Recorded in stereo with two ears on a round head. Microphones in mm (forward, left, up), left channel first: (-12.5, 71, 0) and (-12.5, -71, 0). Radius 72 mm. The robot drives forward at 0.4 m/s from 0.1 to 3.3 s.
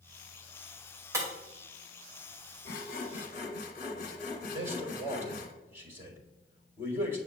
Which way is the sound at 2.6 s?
65° left (ahead or behind).